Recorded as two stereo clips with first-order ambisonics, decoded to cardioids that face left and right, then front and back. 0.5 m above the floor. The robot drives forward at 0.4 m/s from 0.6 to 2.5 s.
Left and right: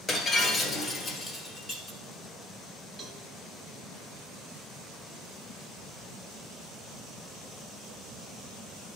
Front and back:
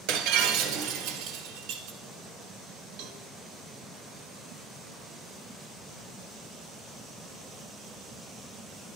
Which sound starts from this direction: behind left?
Breaking glass, at 0.1 s.